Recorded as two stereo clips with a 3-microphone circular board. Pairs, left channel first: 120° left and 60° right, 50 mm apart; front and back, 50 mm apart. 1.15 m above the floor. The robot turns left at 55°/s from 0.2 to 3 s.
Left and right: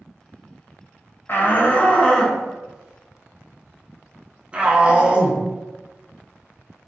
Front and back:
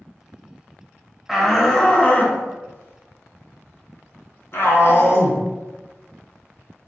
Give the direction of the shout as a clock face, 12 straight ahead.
9 o'clock.